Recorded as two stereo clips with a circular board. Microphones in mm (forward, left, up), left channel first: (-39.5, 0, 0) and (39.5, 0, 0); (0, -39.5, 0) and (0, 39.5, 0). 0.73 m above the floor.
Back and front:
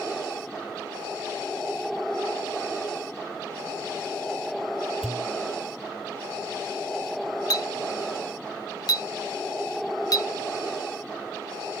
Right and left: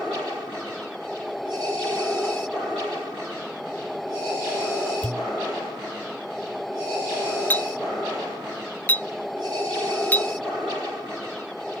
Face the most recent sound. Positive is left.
turn(degrees=-155)